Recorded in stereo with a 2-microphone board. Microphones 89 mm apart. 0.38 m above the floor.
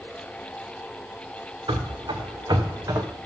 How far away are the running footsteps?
About 1.8 m.